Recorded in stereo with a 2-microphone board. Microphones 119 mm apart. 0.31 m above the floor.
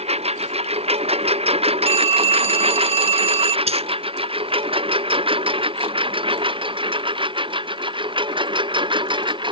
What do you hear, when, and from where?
0.0 s a lawn mower: 60° right (ahead or behind); by 9.5 s 40° right (ahead or behind)
1.9 s a phone ringing: 50° right (ahead or behind)
3.7 s a dropped coin: 60° right (ahead or behind)